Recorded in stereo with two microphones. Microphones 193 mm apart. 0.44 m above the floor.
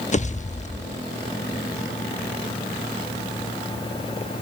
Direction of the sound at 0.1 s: 40° left (ahead or behind).